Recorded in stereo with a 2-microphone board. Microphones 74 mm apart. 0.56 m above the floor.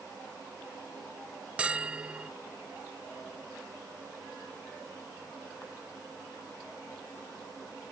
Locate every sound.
1.6 s a bell: 15° right (ahead or behind)